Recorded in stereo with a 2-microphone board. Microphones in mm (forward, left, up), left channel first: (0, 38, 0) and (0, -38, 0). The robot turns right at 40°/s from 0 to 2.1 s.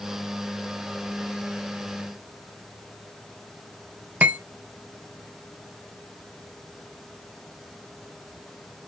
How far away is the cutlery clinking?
About 0.8 m.